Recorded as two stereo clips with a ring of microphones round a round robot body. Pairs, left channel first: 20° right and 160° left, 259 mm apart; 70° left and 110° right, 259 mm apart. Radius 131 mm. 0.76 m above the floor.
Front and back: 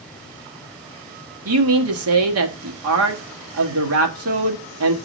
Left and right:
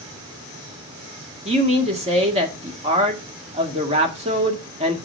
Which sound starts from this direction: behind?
A man speaking, at 1.4 s.